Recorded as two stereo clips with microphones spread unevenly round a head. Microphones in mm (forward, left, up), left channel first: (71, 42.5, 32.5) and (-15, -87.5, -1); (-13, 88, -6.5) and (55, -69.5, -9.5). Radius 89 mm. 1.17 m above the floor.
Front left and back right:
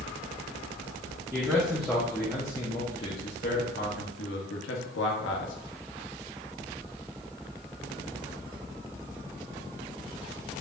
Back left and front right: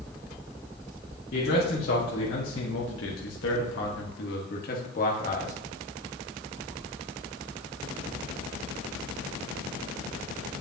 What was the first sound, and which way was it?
A man speaking, 150° left.